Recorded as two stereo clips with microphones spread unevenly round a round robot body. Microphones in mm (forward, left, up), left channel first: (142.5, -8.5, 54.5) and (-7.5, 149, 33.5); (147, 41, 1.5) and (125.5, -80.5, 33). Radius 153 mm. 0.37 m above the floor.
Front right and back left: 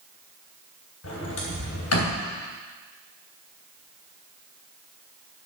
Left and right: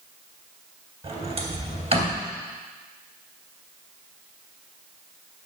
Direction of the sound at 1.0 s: 55° right.